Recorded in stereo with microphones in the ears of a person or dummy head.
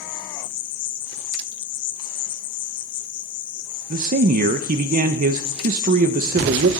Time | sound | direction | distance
0.0 | an insect | 45° left (ahead or behind) | 1.6 m
3.9 | a man speaking | 50° right (ahead or behind) | 0.7 m